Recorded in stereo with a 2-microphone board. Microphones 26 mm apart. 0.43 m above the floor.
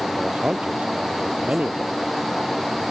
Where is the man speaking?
50° right (ahead or behind).